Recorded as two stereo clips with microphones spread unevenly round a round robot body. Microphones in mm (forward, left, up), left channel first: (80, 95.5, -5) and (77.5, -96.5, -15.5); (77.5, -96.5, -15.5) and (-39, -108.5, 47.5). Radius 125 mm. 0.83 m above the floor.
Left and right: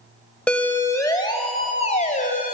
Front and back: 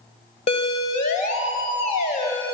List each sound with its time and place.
0.5 s a siren: 5° left, 3.5 m; by 2.5 s 45° left, 4 m